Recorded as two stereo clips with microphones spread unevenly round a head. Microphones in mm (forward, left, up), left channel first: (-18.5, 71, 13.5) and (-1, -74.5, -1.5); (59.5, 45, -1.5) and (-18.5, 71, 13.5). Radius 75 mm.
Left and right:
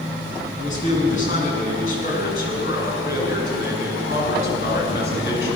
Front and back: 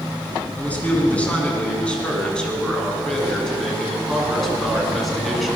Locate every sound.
0.6 s a man speaking: 55° left, 9 m; by 5.5 s 75° left, 9 m